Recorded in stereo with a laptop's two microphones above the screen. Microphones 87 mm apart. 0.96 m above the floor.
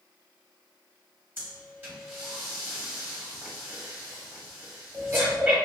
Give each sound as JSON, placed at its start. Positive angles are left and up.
{"t": 1.4, "sound": "breathing", "side_deg": -25, "distance_m": 1.4}